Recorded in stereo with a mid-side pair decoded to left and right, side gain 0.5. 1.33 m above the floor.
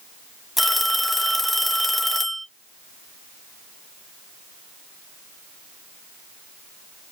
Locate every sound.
0.6 s a phone ringing: straight ahead, 1.1 m